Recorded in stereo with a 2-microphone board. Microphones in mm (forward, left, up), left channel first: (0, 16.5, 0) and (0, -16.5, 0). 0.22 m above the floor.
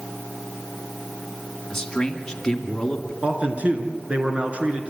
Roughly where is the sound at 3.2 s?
Right.